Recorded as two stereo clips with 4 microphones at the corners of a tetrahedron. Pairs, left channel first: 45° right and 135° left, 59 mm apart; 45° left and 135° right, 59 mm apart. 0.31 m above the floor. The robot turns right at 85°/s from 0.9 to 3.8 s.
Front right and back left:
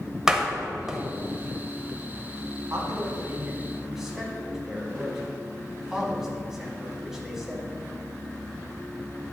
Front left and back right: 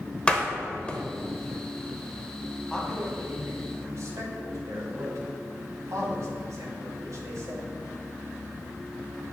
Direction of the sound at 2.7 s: 125° left.